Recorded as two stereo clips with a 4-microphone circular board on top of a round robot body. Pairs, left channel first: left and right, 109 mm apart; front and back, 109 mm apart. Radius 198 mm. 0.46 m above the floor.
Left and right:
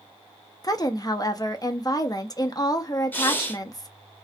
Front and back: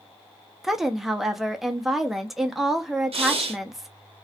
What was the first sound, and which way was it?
A woman speaking, 95° left.